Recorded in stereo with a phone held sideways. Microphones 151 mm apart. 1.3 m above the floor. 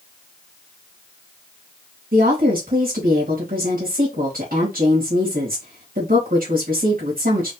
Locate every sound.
2.1 s a woman speaking: 70° right (ahead or behind), 2.5 m